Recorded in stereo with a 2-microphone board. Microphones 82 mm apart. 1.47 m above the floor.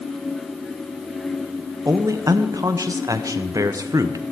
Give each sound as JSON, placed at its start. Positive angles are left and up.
{"t": 1.9, "sound": "a man speaking", "side_deg": -45, "distance_m": 0.7}